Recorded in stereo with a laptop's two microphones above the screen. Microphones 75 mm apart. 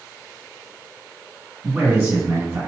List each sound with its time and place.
1.6 s a man speaking: 35° right (ahead or behind), 1.8 m